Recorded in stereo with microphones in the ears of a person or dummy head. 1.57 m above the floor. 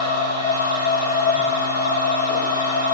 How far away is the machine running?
About 1.5 m.